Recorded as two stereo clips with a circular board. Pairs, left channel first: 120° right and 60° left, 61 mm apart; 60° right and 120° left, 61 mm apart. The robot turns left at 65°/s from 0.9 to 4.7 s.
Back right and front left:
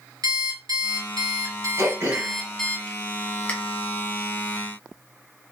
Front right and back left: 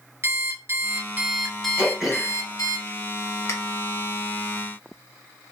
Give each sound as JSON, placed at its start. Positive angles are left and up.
{"t": 0.2, "sound": "an alarm clock", "azimuth_deg": 75, "distance_m": 1.1}
{"t": 1.8, "sound": "throat clearing", "azimuth_deg": 55, "distance_m": 1.4}